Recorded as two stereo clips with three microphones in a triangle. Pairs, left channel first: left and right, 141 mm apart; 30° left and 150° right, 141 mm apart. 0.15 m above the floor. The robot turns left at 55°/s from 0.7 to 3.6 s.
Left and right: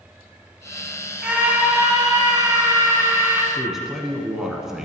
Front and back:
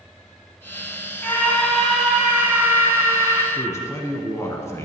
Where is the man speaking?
5° right, 1.1 m.